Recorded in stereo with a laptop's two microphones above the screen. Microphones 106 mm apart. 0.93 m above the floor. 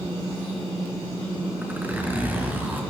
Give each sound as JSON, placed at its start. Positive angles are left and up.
{"t": 1.6, "sound": "a zipper", "side_deg": -15, "distance_m": 5.5}